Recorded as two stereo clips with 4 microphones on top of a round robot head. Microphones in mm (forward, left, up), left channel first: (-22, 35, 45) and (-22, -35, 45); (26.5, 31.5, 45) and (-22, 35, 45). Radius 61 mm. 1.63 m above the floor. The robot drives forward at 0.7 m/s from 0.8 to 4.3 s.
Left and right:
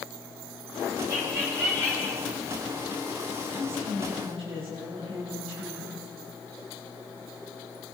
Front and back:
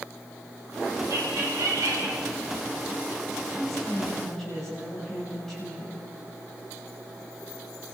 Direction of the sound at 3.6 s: 85° right.